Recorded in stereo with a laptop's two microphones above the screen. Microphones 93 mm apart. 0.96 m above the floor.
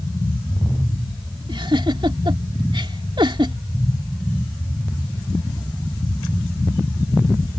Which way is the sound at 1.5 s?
60° right (ahead or behind).